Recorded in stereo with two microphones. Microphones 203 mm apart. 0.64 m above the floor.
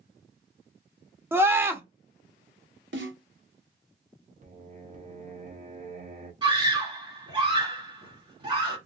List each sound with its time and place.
1.3 s a scream: 10° right (ahead or behind), 0.8 m
2.9 s a snare drum: 70° right (ahead or behind), 1.4 m
4.4 s singing: 35° right (ahead or behind), 1.1 m
6.4 s a scream: 25° right (ahead or behind), 2 m